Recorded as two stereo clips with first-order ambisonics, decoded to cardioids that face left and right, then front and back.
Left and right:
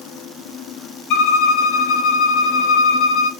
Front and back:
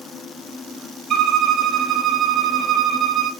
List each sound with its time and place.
1.1 s a violin: 125° left, 0.8 m